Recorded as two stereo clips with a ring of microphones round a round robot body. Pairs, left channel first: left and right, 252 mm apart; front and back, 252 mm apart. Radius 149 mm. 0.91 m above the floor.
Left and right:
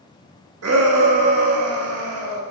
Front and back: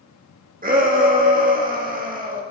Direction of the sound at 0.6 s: 125° right.